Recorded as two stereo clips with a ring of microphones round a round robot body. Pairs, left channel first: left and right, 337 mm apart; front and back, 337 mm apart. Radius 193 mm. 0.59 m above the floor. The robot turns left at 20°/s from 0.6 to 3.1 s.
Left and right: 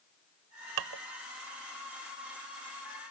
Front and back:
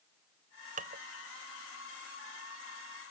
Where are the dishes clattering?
110° right; by 1.0 s 115° right.